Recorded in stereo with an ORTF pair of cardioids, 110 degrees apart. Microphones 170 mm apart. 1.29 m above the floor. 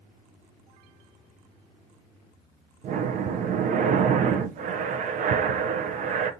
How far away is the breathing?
About 0.6 m.